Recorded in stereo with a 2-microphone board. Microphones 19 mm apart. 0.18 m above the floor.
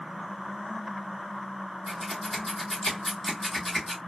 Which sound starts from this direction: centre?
Scissors, at 1.9 s.